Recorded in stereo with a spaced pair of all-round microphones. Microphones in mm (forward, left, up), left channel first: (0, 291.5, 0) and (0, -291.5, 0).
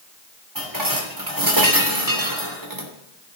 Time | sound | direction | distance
0.6 | dishes clattering | 35° right (ahead or behind) | 2.5 m